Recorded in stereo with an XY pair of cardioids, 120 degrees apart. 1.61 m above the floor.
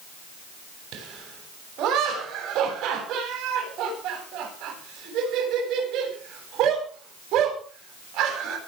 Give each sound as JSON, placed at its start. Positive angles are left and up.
{"t": 0.9, "sound": "laughter", "azimuth_deg": -70, "distance_m": 9.0}